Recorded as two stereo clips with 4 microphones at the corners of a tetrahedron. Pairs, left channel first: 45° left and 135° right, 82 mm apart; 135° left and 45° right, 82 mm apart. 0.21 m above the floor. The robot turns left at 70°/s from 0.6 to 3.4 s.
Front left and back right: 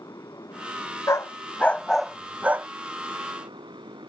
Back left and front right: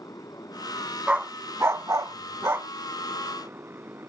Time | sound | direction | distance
0.0 | a motorcycle | 90° left | ?
1.1 | a dog barking | 25° left | ?